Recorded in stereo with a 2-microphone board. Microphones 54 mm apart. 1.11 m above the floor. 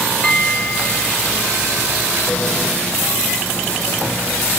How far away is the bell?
About 2.5 m.